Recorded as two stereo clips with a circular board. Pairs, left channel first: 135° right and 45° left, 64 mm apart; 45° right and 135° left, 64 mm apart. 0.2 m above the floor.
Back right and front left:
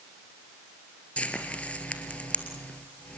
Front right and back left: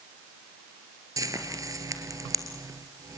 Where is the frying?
155° left, 2 m.